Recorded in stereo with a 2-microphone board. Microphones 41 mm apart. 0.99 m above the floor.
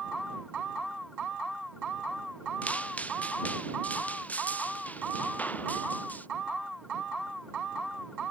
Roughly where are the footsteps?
Left.